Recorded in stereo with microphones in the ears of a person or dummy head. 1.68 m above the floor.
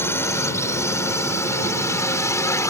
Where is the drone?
20° left (ahead or behind).